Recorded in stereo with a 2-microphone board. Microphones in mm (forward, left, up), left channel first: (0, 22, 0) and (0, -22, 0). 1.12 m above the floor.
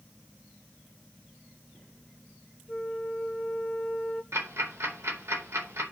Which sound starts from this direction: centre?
A flute, at 2.7 s.